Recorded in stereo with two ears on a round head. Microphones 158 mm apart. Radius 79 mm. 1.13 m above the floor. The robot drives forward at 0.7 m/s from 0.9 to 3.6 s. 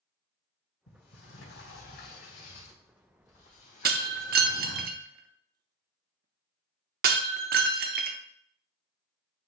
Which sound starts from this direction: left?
A sliding door, at 0.9 s.